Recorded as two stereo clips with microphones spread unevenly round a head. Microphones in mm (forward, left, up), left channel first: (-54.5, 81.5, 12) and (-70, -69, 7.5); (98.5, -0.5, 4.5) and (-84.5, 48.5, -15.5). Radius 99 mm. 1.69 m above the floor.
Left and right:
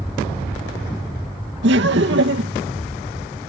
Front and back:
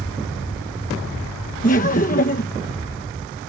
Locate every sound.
1.6 s laughter: 70° right